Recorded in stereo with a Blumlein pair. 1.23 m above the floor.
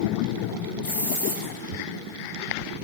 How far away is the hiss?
About 6.5 m.